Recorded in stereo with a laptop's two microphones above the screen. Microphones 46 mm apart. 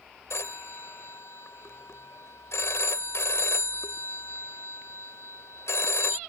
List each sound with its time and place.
0.3 s a phone ringing: 80° left